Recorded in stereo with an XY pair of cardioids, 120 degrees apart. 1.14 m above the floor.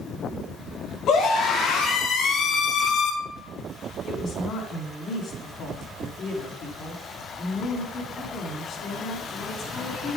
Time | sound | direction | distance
1.1 | a scream | 65° left | 2 m
4.1 | a woman speaking | 50° left | 2.5 m